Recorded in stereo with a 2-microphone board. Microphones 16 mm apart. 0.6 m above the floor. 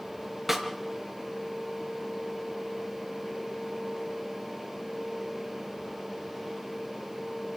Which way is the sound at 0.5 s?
15° right (ahead or behind).